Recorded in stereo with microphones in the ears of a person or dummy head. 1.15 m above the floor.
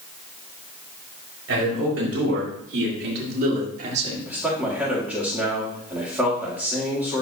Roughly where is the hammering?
I don't hear hammering.